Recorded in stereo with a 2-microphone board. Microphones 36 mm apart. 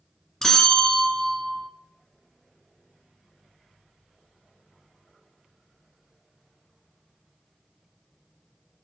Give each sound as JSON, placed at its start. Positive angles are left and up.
{"t": 0.4, "sound": "a bell", "side_deg": 15, "distance_m": 1.0}